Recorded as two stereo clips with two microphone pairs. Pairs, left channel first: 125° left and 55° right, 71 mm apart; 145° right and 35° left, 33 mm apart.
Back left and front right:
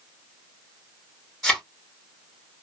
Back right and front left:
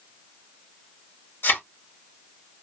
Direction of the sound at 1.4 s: 145° right.